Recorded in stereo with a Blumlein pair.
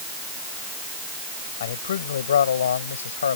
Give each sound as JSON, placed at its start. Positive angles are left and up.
{"t": 1.6, "sound": "a man speaking", "azimuth_deg": 60}